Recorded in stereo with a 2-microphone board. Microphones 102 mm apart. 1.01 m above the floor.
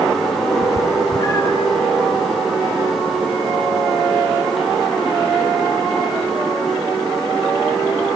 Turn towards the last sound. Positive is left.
turn(degrees=45)  # may be behind; listen again after turning